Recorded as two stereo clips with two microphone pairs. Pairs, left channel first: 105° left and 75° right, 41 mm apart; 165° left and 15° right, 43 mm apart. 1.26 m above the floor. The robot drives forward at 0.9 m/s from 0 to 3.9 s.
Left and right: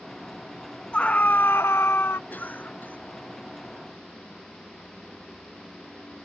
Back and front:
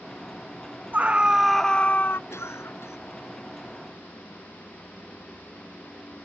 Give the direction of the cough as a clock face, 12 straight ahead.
7 o'clock.